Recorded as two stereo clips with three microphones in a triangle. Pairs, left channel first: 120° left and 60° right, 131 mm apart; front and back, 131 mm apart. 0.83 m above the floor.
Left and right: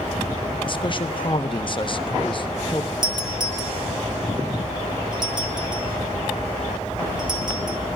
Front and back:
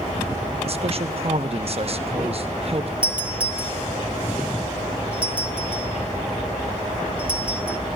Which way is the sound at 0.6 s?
160° left.